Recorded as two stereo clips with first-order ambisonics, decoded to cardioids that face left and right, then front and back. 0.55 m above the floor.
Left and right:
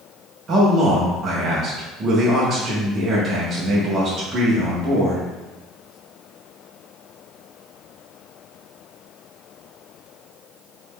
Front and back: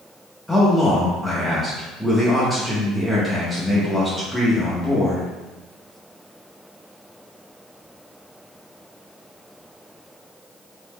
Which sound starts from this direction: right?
A man speaking, at 0.5 s.